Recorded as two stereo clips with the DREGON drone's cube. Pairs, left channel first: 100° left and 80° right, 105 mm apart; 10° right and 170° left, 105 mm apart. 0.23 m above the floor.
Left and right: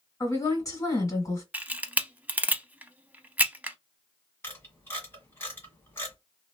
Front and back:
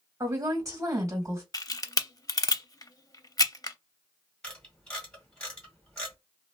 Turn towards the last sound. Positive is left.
turn(degrees=65)